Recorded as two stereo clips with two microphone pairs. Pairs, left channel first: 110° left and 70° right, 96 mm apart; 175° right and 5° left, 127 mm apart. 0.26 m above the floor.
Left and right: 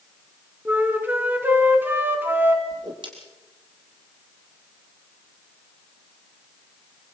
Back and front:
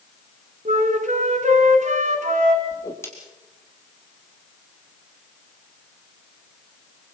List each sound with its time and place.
0.7 s a flute: straight ahead, 2.5 m
2.7 s a whoosh: 105° right, 4 m